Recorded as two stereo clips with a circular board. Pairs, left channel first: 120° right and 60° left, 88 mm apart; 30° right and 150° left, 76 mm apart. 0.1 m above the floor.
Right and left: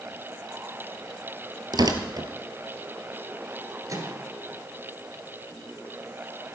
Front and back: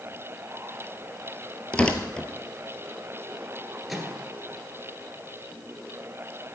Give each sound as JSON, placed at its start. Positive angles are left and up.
{"t": 1.7, "sound": "tearing paper", "azimuth_deg": 45, "distance_m": 1.2}
{"t": 3.9, "sound": "a microwave", "azimuth_deg": 65, "distance_m": 1.8}